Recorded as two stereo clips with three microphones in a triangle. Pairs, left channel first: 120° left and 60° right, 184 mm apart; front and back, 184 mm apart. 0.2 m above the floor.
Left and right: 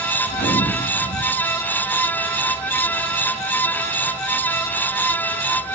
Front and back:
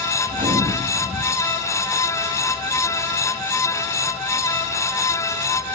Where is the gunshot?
140° left, 8.5 m.